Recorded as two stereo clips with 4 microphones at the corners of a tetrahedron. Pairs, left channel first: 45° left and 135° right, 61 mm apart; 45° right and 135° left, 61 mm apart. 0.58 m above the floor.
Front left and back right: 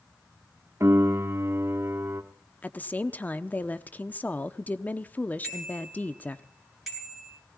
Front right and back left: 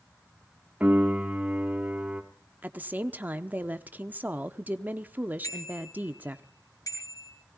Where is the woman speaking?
90° left, 0.8 m.